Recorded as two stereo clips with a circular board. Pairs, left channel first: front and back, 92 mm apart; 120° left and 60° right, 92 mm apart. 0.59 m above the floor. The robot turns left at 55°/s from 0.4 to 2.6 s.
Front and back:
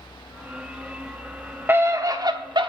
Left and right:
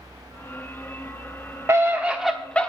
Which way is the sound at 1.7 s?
120° right.